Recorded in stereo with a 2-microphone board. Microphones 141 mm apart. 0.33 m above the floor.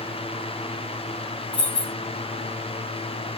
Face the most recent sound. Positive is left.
turn(degrees=30)  # may be behind; listen again after turning